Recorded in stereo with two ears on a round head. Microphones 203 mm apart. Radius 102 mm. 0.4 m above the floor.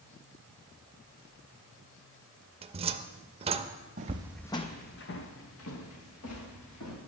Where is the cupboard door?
25° right (ahead or behind), 0.5 m.